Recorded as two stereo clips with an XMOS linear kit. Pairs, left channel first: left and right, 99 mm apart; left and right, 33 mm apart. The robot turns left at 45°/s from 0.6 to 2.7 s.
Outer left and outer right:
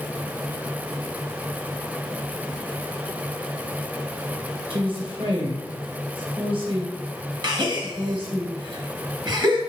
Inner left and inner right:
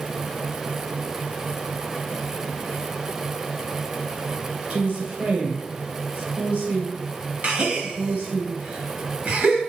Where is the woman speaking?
65° right (ahead or behind), 3 m.